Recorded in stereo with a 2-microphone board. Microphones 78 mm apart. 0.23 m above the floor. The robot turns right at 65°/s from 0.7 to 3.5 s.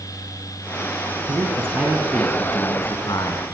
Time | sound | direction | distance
1.3 | a man speaking | 55° right | 3 m